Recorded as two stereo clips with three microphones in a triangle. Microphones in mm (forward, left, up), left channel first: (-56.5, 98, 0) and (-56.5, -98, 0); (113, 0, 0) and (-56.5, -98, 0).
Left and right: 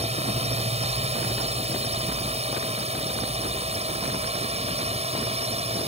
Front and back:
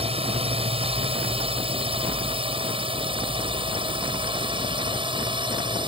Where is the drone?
115° right; by 5.9 s 110° right.